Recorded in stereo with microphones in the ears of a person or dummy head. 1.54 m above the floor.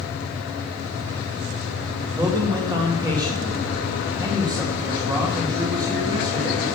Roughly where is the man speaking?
Right.